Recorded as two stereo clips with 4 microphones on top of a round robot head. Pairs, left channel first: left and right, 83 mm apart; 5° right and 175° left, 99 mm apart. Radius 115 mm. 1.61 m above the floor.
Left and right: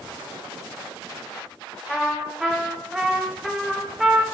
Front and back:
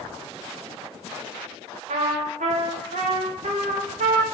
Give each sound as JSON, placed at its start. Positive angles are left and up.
{"t": 1.9, "sound": "a trumpet", "azimuth_deg": 180, "distance_m": 1.2}